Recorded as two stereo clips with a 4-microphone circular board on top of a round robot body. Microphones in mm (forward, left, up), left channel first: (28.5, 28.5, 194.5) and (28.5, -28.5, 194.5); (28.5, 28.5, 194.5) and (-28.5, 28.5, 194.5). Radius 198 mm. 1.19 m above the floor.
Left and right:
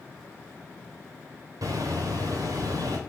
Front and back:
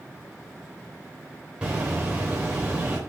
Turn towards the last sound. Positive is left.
turn(degrees=-105)